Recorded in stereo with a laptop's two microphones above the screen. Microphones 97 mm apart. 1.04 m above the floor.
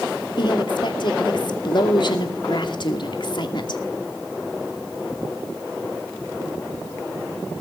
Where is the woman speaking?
55° left (ahead or behind), 2.5 m.